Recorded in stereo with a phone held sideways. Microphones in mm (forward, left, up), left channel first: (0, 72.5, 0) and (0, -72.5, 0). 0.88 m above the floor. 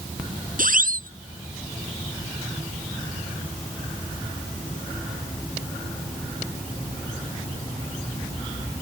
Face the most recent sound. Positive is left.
turn(degrees=-70)  # may be behind; listen again after turning